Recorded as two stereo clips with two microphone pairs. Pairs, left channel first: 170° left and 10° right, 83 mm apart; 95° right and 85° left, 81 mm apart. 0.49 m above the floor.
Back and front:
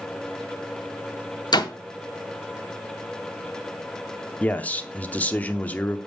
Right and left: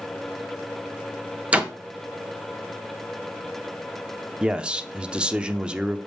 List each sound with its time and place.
1.5 s a door slam: 160° left, 0.9 m
4.4 s a man speaking: 145° left, 0.7 m